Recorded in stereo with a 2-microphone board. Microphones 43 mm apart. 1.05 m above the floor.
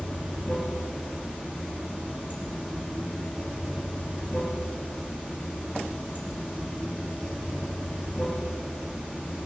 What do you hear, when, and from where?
0.0 s running water: 30° right (ahead or behind), 9.5 m